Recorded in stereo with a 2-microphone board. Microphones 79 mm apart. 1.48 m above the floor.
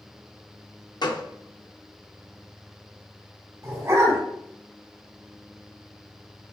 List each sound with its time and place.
1.0 s a gunshot: 60° left (ahead or behind), 0.6 m
3.6 s a dog barking: 35° right (ahead or behind), 2.5 m